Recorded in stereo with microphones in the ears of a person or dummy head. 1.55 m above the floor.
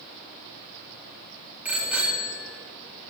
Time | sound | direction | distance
1.6 | a bicycle bell | 10° right (ahead or behind) | 2 m